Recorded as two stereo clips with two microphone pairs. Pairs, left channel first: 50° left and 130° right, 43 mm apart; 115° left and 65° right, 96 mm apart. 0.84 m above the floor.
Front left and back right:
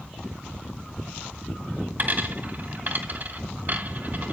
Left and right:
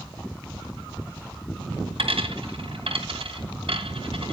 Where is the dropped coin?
85° right, 2 m.